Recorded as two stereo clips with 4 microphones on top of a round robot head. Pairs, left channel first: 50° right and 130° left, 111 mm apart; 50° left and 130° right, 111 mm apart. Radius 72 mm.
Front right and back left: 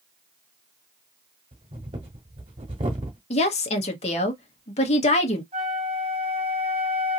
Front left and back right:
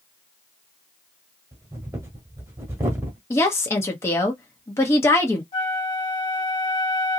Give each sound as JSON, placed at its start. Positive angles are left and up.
{"t": 1.5, "sound": "breathing", "azimuth_deg": 165, "distance_m": 1.0}
{"t": 3.3, "sound": "a woman speaking", "azimuth_deg": -20, "distance_m": 1.1}
{"t": 5.5, "sound": "a flute", "azimuth_deg": 90, "distance_m": 1.3}